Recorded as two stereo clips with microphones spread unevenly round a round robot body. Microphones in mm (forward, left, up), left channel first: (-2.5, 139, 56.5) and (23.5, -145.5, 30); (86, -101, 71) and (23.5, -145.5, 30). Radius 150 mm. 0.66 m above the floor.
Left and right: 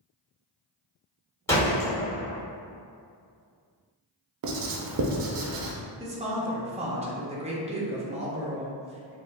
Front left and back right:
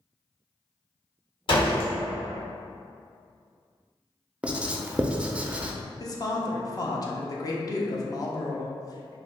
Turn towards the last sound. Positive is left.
turn(degrees=-30)